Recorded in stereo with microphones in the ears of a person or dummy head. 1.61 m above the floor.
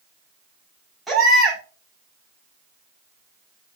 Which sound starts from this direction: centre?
A baby crying, at 1.1 s.